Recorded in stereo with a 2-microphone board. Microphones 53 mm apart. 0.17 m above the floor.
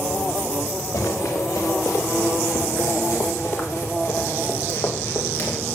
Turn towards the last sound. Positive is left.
turn(degrees=40)  # may be behind; listen again after turning